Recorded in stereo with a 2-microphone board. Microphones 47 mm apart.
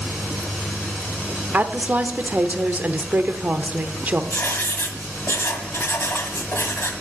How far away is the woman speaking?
About 0.8 m.